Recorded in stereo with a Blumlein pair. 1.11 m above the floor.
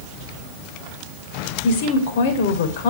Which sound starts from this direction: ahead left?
A woman speaking, at 1.6 s.